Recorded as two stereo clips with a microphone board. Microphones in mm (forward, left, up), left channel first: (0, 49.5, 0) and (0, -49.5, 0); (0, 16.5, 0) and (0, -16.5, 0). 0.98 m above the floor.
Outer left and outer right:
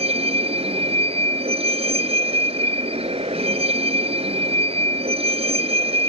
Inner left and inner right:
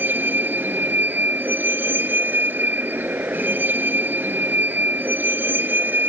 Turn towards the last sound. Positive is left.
turn(degrees=-90)